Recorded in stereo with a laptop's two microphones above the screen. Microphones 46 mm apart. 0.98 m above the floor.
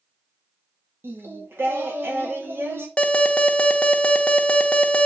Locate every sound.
1.0 s singing: 70° right (ahead or behind), 1.7 m
3.0 s an alarm: 25° left (ahead or behind), 0.9 m